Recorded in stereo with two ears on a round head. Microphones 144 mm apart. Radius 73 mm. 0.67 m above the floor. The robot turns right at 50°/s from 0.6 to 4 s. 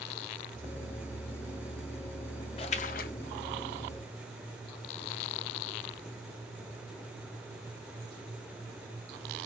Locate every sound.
2.6 s a splash: 30° left (ahead or behind), 0.5 m; by 3.1 s 55° left (ahead or behind), 0.5 m